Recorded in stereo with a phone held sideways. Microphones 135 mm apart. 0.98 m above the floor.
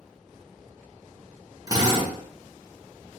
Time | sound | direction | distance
1.7 | a drill | 30° right (ahead or behind) | 1.3 m